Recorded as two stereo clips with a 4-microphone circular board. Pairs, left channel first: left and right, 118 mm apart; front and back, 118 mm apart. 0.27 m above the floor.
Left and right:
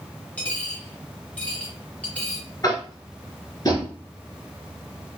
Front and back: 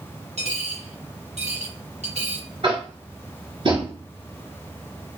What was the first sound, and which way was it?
A dropped coin, 165° left.